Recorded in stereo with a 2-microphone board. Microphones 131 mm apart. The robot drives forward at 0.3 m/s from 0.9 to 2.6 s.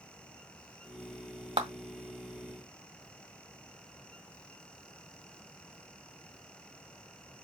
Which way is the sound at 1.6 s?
45° right (ahead or behind).